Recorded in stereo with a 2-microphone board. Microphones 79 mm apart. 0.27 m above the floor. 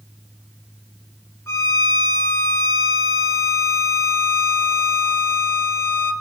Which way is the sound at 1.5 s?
40° left (ahead or behind).